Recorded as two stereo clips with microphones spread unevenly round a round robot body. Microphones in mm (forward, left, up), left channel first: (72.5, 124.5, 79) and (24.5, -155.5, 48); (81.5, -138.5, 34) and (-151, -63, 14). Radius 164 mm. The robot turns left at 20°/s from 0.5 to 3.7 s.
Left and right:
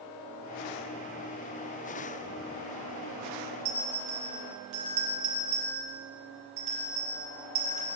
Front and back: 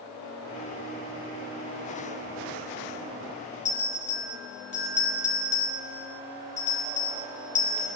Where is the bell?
80° right, 3 m.